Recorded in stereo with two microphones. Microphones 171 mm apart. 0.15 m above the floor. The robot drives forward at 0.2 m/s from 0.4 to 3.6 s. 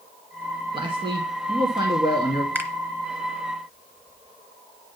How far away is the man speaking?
About 1.5 m.